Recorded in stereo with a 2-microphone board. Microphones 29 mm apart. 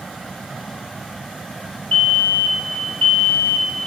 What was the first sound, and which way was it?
A fire alarm, 60° left (ahead or behind).